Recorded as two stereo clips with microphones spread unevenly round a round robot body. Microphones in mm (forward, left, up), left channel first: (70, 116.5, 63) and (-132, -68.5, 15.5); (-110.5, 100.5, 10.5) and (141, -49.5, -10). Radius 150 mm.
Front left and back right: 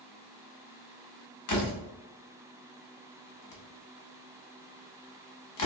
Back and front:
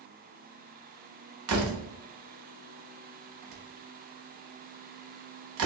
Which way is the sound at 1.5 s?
10° left.